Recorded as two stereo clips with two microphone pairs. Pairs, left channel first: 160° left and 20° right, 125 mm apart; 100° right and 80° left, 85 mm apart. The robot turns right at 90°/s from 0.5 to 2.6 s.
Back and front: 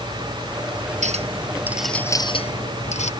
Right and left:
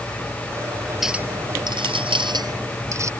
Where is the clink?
5° right; by 3.1 s 135° left.